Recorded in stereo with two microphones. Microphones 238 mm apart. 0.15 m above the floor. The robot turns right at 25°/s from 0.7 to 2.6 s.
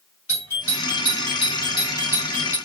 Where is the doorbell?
25° left (ahead or behind), 2.5 m; by 2.6 s 5° left (ahead or behind), 2.5 m.